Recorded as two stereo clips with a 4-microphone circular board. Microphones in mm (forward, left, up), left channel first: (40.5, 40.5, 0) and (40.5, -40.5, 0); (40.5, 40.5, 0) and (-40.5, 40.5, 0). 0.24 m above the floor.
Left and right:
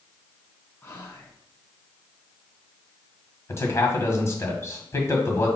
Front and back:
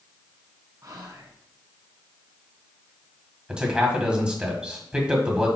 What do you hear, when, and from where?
0.8 s whispering: 145° left, 2 m
3.5 s a man speaking: 110° left, 1.6 m